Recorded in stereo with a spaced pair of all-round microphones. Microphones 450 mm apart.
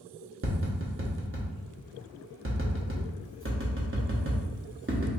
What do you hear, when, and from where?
0.4 s tapping: 30° right (ahead or behind), 0.8 m